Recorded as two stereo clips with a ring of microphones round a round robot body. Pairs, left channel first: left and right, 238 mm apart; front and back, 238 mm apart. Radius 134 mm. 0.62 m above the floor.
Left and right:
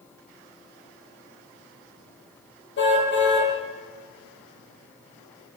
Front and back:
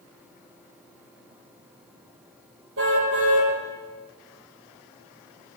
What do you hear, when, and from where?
2.8 s a car horn: 130° left, 8.5 m